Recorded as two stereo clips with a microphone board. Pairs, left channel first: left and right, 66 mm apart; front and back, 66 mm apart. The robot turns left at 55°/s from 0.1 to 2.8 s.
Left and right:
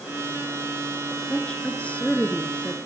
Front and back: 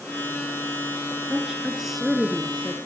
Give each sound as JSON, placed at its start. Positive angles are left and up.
{"t": 1.3, "sound": "a woman speaking", "azimuth_deg": 125, "distance_m": 1.1}